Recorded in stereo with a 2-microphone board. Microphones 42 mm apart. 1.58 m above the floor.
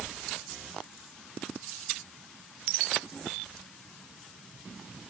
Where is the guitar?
I don't hear a guitar.